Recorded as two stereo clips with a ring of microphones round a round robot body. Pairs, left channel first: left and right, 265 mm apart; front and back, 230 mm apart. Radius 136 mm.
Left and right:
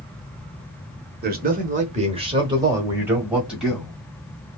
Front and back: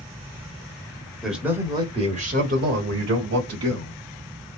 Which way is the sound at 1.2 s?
90° right.